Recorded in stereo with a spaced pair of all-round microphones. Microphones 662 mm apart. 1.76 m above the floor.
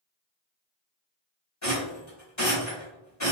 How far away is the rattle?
About 1.8 m.